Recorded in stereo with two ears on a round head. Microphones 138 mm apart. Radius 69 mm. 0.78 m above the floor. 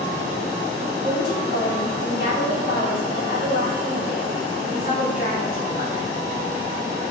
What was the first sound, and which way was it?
A woman speaking, 55° left (ahead or behind).